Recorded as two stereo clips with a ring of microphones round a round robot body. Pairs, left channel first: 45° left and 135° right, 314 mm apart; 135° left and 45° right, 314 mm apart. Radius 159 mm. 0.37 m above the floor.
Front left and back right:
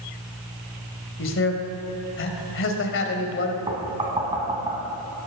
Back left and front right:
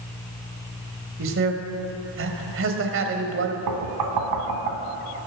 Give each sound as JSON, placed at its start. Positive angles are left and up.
{"t": 1.2, "sound": "a man speaking", "azimuth_deg": 0, "distance_m": 1.8}
{"t": 3.7, "sound": "knocking", "azimuth_deg": -60, "distance_m": 2.0}